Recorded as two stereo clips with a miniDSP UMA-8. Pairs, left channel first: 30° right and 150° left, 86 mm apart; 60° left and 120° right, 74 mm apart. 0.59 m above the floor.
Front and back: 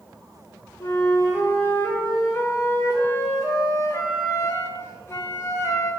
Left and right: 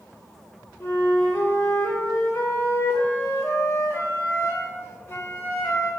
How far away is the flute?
About 0.5 m.